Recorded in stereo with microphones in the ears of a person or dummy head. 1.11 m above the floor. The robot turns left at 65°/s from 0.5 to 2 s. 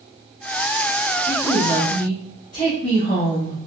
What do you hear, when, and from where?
1.3 s a woman speaking: 170° right, 1.5 m; by 3.6 s 140° left, 1.5 m